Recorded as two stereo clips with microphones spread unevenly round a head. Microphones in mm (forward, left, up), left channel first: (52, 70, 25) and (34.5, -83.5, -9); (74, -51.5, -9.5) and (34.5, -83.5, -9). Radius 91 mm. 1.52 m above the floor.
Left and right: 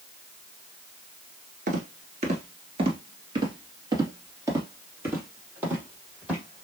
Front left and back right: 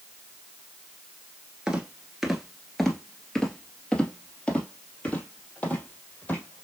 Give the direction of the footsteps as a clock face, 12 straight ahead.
3 o'clock.